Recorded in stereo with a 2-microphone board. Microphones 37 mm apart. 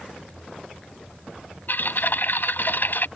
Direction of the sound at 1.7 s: 60° left (ahead or behind).